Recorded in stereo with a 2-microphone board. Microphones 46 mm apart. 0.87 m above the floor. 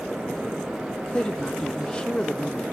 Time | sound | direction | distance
1.1 | a woman speaking | 20° left (ahead or behind) | 1.0 m